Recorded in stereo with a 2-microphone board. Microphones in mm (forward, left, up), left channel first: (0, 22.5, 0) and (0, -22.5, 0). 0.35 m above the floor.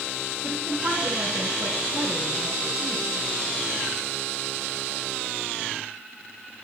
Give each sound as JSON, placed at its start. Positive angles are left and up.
{"t": 0.4, "sound": "a woman speaking", "side_deg": -60, "distance_m": 2.5}